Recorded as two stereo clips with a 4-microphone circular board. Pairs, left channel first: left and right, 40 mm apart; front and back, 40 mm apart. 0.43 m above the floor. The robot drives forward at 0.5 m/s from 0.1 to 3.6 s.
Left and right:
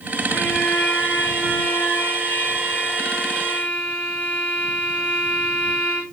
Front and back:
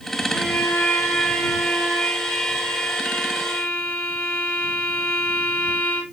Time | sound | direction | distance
0.3 | a violin | 40° left | 6.5 m